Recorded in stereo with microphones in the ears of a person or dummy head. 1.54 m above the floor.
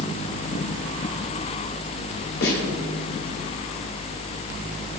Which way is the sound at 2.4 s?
65° left (ahead or behind).